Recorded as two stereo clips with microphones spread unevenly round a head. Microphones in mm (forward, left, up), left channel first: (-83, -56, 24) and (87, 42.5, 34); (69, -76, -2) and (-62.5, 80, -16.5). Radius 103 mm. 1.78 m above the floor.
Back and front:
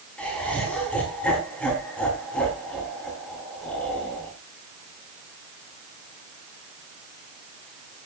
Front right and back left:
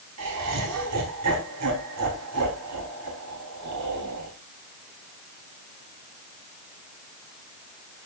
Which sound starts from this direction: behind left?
Laughter, at 0.2 s.